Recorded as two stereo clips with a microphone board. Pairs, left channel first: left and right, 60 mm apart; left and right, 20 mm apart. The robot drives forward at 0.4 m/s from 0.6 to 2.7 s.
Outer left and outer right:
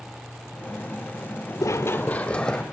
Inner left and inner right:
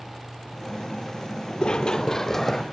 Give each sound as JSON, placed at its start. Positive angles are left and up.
{"t": 1.6, "sound": "running footsteps", "side_deg": 60, "distance_m": 0.6}